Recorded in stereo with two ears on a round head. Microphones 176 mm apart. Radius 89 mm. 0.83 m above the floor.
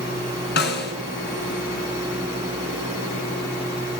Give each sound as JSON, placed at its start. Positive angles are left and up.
{"t": 0.6, "sound": "a snare drum", "side_deg": 55, "distance_m": 4.0}